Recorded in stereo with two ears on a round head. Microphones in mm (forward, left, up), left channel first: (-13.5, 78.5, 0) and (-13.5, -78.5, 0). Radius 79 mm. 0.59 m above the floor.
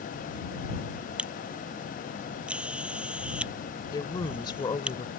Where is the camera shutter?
5° right (ahead or behind).